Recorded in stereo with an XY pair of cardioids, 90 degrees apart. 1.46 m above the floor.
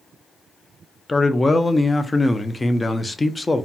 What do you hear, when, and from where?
1.1 s a man speaking: 25° left, 0.5 m